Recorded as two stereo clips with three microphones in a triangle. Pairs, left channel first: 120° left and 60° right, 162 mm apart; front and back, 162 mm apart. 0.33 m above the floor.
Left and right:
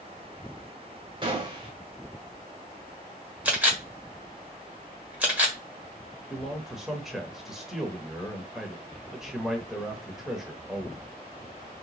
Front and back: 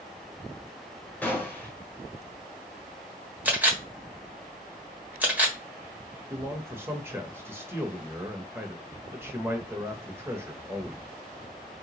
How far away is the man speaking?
About 1.0 m.